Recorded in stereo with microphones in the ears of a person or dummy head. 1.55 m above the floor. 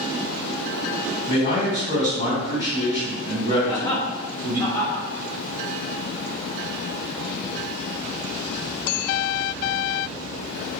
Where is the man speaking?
30° left (ahead or behind), 1.6 m.